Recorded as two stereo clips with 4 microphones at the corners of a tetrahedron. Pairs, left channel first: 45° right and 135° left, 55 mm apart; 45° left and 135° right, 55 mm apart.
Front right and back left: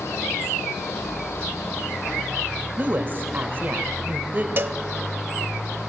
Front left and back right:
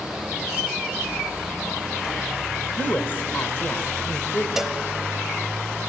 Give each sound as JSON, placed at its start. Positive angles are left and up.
{"t": 2.8, "sound": "a woman speaking", "azimuth_deg": 85, "distance_m": 1.6}
{"t": 4.6, "sound": "a cowbell", "azimuth_deg": 145, "distance_m": 0.6}